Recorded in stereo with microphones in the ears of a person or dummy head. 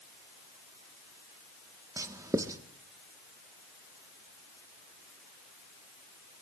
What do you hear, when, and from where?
2.0 s writing: 20° right (ahead or behind), 1.1 m